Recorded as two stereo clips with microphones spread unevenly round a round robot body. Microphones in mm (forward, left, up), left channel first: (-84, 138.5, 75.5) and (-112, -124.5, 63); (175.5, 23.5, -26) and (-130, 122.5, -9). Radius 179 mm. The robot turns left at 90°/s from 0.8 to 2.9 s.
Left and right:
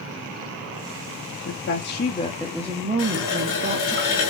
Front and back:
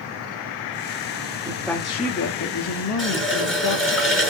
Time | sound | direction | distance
1.4 | a woman speaking | 90° left | 1.1 m
3.0 | a running tap | 70° left | 5.5 m